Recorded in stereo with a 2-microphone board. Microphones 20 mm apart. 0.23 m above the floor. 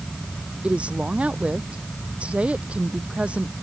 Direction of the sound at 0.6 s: 75° right (ahead or behind).